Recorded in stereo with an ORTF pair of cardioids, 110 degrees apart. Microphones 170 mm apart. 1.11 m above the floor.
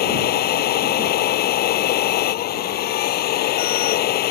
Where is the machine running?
65° left.